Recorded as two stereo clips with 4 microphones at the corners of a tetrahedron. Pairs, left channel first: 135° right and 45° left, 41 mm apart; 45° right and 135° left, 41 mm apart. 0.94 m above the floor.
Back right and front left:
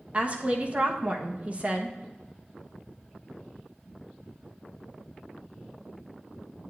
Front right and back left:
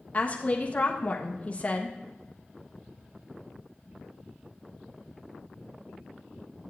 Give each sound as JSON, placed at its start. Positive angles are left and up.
{"t": 0.1, "sound": "a woman speaking", "azimuth_deg": 0, "distance_m": 1.2}